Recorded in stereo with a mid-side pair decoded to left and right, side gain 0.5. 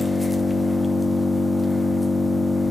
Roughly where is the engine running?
Ahead.